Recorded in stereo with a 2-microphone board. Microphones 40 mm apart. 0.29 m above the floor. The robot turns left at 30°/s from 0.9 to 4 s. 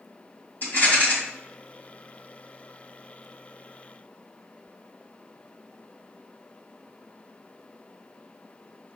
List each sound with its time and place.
0.6 s a rattle: 55° left (ahead or behind), 2 m